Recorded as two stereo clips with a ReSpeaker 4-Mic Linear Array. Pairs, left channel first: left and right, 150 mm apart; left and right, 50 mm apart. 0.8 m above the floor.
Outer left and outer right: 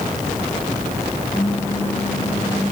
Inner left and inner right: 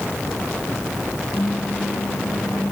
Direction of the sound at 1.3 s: 70° left (ahead or behind).